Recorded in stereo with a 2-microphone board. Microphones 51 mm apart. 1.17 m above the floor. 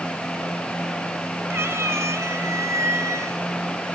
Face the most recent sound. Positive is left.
turn(degrees=-70)  # may be behind; listen again after turning